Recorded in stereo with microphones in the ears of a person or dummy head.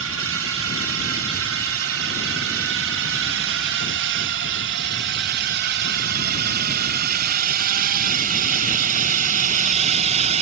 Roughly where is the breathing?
I don't hear breathing.